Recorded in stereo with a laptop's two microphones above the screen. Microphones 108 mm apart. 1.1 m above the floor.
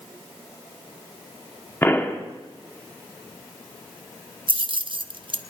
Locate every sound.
1.8 s a pop: 20° left (ahead or behind), 1.1 m
4.5 s keys jangling: 50° right (ahead or behind), 0.6 m